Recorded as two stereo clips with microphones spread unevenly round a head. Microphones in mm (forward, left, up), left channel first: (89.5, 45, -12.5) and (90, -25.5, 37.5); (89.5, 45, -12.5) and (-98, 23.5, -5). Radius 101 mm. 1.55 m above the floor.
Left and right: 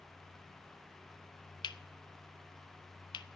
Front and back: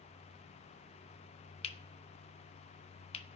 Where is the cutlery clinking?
55° left, 1.1 m.